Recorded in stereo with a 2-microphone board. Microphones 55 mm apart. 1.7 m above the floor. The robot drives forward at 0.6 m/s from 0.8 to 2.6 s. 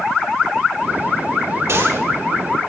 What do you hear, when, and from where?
1.7 s a gunshot: 65° right (ahead or behind), 3.5 m; by 2.0 s 60° right (ahead or behind), 3.5 m